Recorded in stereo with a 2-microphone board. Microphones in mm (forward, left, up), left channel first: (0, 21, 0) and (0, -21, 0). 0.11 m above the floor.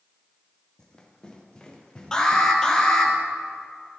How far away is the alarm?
About 1.9 m.